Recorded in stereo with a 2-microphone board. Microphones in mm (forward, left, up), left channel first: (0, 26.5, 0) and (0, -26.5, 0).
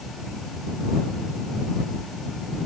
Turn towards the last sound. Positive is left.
No sound to turn to.